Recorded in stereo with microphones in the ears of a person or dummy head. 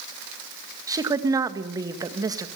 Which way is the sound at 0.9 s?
25° right (ahead or behind).